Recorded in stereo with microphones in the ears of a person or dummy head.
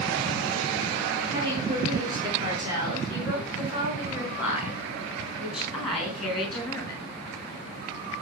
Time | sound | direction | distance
1.3 | a woman speaking | 25° right (ahead or behind) | 6 m